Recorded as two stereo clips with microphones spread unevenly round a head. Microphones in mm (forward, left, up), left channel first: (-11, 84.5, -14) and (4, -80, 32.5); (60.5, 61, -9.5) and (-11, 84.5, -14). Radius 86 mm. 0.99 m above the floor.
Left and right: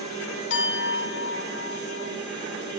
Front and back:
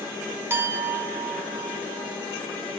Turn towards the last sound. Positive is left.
turn(degrees=105)